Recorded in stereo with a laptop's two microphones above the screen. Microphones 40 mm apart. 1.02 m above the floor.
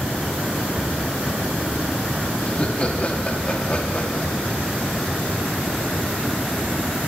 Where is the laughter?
30° left (ahead or behind), 1.7 m.